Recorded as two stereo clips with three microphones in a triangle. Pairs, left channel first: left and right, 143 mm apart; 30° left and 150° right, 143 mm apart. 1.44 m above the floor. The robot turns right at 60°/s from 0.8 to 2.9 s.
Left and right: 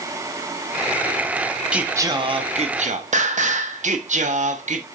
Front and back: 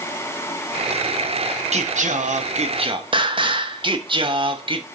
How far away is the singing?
About 0.6 m.